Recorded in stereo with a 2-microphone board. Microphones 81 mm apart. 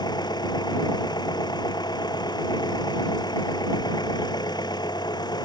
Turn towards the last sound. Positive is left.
turn(degrees=60)  # may be behind; listen again after turning